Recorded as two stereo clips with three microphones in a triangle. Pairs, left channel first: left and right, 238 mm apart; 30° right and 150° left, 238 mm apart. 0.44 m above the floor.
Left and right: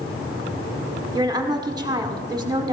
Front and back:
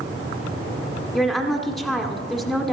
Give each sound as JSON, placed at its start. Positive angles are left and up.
{"t": 1.1, "sound": "a woman speaking", "azimuth_deg": -120, "distance_m": 1.3}